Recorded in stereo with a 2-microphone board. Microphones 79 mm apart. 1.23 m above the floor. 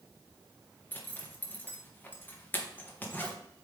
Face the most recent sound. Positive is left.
turn(degrees=25)  # may be behind; listen again after turning